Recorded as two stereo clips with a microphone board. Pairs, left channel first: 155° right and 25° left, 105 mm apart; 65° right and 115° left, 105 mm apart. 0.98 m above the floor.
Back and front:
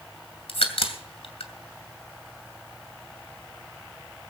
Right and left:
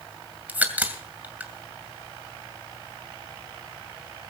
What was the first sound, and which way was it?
A crack, 175° right.